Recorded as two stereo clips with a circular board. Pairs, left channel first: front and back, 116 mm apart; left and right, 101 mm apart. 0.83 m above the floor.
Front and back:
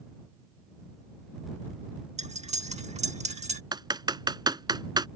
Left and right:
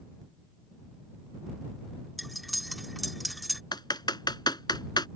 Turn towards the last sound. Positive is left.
turn(degrees=130)